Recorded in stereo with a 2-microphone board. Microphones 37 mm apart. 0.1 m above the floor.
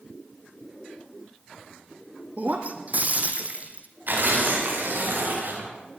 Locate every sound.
2.4 s breaking glass: 45° right (ahead or behind), 2.5 m
4.1 s tearing paper: 55° right (ahead or behind), 9 m